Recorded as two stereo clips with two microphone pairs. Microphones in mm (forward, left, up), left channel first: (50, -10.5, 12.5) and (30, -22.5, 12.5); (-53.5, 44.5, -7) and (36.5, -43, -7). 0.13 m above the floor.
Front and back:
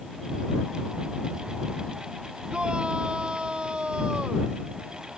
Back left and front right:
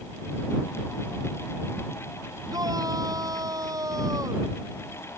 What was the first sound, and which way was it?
A shout, 105° right.